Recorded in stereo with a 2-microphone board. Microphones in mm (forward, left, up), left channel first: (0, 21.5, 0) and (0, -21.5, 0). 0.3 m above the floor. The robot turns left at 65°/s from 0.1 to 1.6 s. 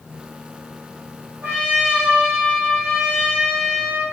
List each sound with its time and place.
1.4 s a trumpet: 50° right (ahead or behind), 4 m; by 4.0 s 35° right (ahead or behind), 4 m